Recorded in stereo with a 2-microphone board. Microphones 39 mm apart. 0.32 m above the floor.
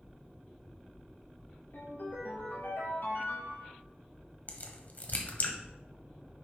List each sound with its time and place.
1.7 s a ringtone: 80° left, 3.5 m
4.5 s a crack: 45° left (ahead or behind), 1.2 m